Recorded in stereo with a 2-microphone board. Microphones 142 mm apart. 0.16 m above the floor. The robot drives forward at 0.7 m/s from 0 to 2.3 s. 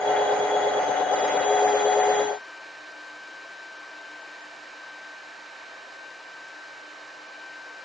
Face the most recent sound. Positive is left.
No sound to turn to.